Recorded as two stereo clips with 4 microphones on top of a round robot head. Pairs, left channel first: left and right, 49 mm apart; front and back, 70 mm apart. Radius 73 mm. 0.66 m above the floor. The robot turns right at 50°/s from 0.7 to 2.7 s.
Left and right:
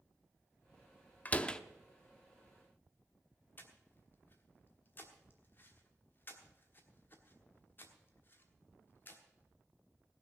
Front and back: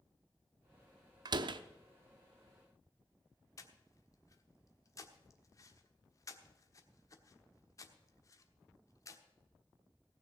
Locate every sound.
1.2 s a door slam: 150° left, 0.7 m; by 1.6 s 170° left, 0.7 m
3.6 s breathing: 40° left, 1.4 m